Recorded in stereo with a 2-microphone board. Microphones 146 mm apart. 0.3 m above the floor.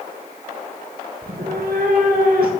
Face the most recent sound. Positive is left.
turn(degrees=-85)